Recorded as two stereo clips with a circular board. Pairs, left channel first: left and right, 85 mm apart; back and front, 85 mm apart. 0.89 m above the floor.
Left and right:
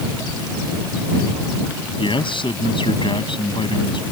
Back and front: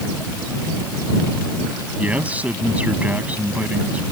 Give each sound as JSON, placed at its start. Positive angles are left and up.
{"t": 2.0, "sound": "a man speaking", "azimuth_deg": 75}